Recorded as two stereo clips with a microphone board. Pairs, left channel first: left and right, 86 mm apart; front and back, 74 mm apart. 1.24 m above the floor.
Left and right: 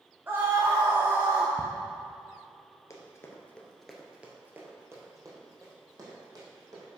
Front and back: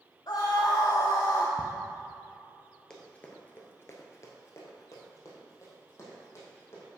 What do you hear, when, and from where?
0.3 s a scream: 25° right, 0.9 m
1.6 s ticking: 110° left, 0.8 m
2.9 s running footsteps: 75° left, 1.5 m; by 6.9 s 50° right, 4 m